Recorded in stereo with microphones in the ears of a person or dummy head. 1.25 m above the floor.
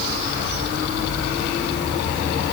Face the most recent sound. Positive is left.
No sound to turn to.